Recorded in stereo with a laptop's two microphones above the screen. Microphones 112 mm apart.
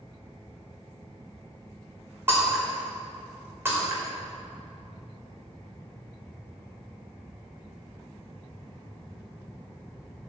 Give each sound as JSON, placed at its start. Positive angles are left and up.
{"t": 2.3, "sound": "breaking glass", "side_deg": -20, "distance_m": 2.0}